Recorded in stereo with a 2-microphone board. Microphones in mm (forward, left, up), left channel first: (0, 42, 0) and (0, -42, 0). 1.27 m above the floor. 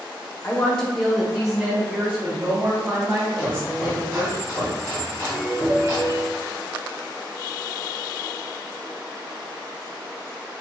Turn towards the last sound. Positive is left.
turn(degrees=-50)  # may be behind; listen again after turning